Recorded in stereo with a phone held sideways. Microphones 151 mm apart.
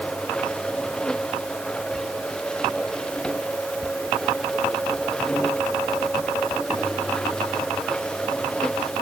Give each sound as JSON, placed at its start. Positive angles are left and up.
{"t": 0.0, "sound": "a machine running", "side_deg": 5}